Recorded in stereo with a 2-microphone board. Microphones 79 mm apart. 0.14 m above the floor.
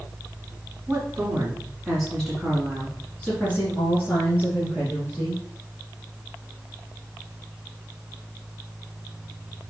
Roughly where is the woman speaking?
Right.